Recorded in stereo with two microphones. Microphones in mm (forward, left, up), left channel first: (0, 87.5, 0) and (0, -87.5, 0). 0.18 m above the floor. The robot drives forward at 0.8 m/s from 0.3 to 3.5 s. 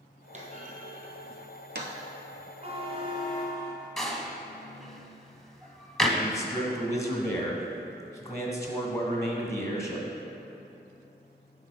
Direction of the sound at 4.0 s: Centre (ahead or behind).